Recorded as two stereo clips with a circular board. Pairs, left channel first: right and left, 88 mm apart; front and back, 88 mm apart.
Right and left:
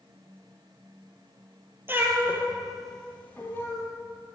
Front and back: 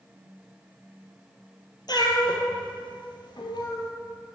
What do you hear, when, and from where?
1.9 s a cat meowing: 30° left, 1.6 m; by 3.9 s 30° right, 2 m